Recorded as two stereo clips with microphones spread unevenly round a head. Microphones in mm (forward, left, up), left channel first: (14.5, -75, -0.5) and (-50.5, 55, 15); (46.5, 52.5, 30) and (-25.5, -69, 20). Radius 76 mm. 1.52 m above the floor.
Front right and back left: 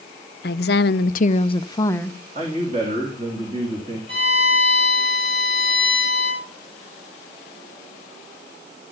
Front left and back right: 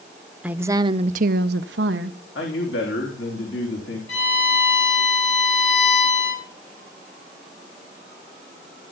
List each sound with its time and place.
0.4 s a woman speaking: 35° right, 0.8 m; by 2.2 s 145° right, 1.0 m
2.4 s a man speaking: 60° left, 3 m
4.1 s a violin: 60° left, 9 m